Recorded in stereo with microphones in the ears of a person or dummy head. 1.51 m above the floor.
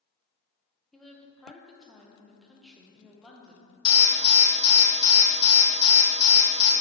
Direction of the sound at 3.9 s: 25° left (ahead or behind).